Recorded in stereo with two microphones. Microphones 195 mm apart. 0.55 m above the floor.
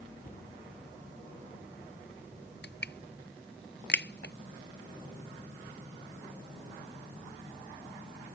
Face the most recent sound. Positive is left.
turn(degrees=65)  # may be behind; listen again after turning